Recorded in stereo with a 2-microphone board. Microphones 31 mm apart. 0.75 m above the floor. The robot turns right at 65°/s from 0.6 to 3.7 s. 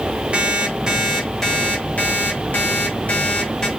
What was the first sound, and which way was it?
An alarm clock, 35° right.